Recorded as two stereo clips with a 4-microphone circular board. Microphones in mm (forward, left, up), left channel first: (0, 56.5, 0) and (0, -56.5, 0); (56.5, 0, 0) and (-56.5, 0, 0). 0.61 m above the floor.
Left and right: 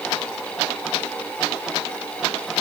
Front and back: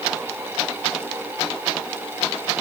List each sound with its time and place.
Only background noise.